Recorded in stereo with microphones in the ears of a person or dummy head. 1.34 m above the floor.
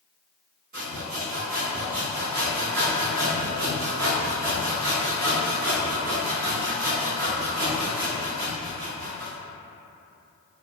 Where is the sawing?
45° right (ahead or behind), 1.1 m.